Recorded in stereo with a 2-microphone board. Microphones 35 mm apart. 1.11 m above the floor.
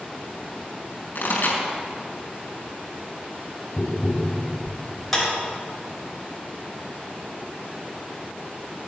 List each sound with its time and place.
1.1 s a pop: 55° left (ahead or behind), 4 m
3.8 s tapping: 5° right (ahead or behind), 1.4 m
5.1 s a clap: 5° left (ahead or behind), 5.5 m